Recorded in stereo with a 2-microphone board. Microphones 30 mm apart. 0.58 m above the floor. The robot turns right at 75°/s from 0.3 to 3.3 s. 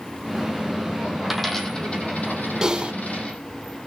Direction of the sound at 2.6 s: 15° right (ahead or behind).